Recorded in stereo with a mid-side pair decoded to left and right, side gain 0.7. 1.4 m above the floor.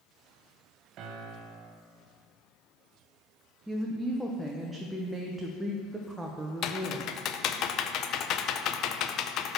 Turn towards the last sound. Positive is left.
turn(degrees=50)